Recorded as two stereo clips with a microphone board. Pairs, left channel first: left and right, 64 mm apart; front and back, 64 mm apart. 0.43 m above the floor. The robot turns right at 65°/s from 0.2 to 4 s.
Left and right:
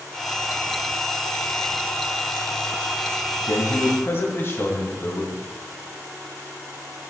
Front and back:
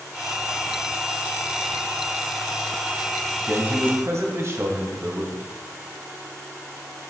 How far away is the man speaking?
About 2.5 m.